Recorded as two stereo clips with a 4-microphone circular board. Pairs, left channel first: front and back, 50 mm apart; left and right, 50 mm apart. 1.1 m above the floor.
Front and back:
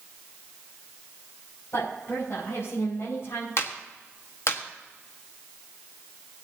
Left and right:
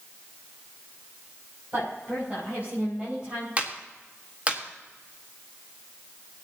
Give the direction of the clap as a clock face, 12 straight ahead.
1 o'clock.